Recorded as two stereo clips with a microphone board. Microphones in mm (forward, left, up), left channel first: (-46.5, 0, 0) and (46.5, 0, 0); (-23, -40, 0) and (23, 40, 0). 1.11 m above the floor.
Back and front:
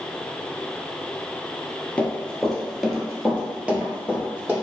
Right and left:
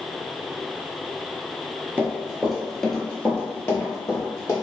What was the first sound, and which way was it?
Running footsteps, 110° left.